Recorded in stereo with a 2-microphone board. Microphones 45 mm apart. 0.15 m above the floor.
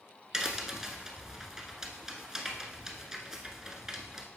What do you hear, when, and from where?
0.3 s a crack: 15° right (ahead or behind), 1.0 m